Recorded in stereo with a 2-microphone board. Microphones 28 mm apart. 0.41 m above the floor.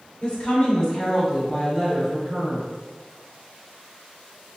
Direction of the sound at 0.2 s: 35° left (ahead or behind).